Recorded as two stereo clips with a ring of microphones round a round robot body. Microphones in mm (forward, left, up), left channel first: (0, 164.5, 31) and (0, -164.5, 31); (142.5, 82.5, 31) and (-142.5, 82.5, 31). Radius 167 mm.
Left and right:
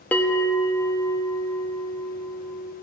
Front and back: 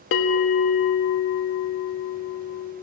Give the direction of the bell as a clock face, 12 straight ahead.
12 o'clock.